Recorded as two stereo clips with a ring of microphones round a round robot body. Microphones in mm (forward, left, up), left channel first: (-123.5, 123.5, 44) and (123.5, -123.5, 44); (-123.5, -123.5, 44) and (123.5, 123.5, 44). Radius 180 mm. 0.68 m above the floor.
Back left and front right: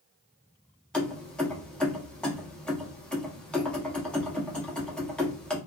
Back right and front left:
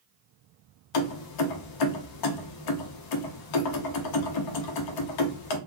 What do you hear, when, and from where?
0.9 s keys jangling: 140° right, 0.6 m